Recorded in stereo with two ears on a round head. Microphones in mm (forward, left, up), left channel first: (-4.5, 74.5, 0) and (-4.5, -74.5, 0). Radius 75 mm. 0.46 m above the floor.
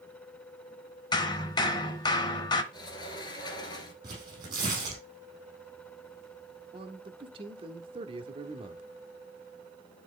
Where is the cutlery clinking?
I don't hear cutlery clinking.